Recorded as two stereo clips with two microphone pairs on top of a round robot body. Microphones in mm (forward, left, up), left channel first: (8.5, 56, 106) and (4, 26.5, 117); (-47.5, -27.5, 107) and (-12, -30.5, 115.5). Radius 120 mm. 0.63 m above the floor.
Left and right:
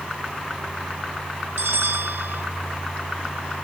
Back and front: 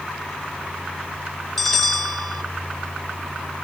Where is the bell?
100° right, 0.5 m.